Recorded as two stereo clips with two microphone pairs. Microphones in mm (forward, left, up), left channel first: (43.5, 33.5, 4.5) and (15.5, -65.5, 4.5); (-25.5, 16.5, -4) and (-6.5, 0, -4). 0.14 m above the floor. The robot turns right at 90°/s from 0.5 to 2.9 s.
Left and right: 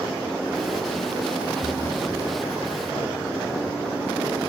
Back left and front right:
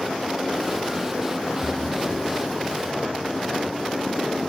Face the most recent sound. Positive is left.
turn(degrees=180)